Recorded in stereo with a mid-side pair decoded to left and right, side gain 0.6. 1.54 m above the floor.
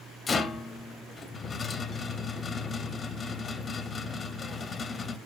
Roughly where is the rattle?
Ahead left.